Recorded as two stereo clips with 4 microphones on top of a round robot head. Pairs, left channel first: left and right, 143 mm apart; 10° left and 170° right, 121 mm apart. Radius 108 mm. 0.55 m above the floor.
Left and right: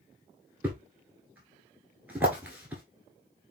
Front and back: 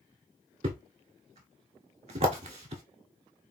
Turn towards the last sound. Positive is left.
turn(degrees=-170)